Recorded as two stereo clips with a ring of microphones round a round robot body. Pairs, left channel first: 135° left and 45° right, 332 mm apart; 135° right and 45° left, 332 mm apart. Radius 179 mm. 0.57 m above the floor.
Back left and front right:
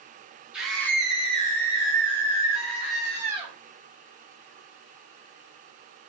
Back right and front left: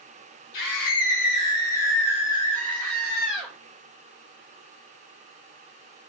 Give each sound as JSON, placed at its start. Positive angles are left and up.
{"t": 0.5, "sound": "a scream", "azimuth_deg": -130, "distance_m": 1.3}